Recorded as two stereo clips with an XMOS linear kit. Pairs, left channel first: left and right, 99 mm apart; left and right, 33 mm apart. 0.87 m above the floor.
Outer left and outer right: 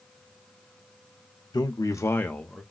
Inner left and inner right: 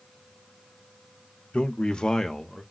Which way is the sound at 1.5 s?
45° left (ahead or behind).